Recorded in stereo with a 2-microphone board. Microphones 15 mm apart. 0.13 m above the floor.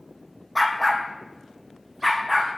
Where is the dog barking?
5° left (ahead or behind), 1.4 m; by 2.5 s 20° right (ahead or behind), 2.5 m.